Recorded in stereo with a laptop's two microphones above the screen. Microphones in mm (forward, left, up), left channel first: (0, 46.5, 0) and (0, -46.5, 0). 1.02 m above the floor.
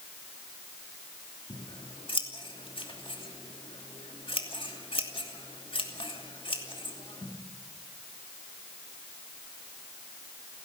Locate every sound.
1.5 s scissors: 70° left (ahead or behind), 2.5 m